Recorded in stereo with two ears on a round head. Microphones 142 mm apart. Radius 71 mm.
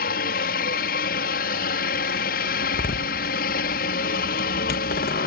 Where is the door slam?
60° left (ahead or behind).